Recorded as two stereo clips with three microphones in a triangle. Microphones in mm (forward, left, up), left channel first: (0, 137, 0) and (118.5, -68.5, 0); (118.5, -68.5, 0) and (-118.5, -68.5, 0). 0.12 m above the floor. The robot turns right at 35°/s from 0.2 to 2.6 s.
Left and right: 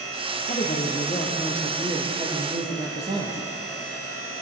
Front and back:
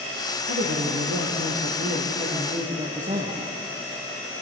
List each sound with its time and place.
0.5 s a woman speaking: 160° left, 3.5 m; by 3.5 s 125° right, 3.5 m